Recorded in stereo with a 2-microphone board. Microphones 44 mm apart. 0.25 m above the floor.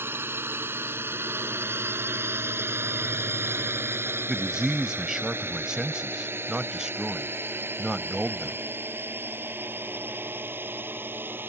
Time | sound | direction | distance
0.0 | a drone | 60° right (ahead or behind) | ?
4.3 | a man speaking | 15° right (ahead or behind) | ?